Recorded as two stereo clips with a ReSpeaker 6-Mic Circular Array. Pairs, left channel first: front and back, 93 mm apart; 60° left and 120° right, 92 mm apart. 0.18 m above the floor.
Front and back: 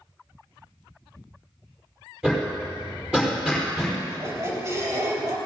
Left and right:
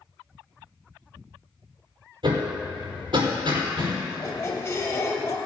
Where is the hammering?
100° right, 5 m.